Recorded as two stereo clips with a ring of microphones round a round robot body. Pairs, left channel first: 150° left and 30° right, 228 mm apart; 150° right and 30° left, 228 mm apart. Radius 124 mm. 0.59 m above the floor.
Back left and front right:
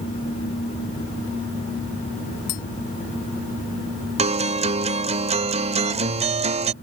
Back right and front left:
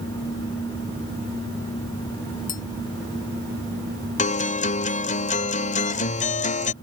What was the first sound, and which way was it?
Tapping, 155° left.